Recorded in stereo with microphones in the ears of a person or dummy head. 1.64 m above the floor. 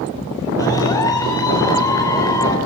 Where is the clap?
15° left (ahead or behind), 4.5 m.